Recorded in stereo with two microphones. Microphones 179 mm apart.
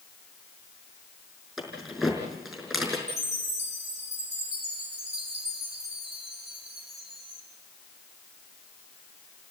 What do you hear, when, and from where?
1.6 s keys jangling: 5° right (ahead or behind), 5.5 m
3.1 s a chime: 75° right (ahead or behind), 6.5 m